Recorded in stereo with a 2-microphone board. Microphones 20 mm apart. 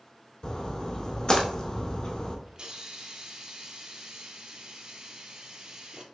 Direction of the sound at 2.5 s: 45° right (ahead or behind).